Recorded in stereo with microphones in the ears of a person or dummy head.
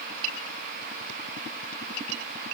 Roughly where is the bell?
I don't hear a bell.